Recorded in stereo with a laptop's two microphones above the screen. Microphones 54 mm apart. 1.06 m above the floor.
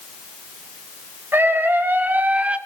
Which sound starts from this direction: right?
A scream, at 1.3 s.